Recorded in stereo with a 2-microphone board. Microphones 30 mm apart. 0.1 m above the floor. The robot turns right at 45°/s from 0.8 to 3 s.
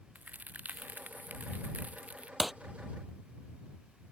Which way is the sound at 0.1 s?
110° right.